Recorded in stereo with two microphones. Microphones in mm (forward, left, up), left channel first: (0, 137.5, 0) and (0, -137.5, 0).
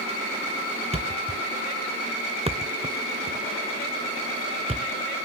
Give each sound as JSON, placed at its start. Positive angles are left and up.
{"t": 0.9, "sound": "a thud", "side_deg": -20, "distance_m": 0.5}